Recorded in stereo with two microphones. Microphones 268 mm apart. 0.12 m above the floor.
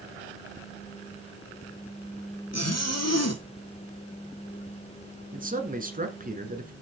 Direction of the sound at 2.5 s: 75° left (ahead or behind).